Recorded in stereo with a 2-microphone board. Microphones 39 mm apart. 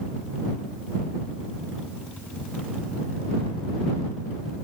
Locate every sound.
Only background noise.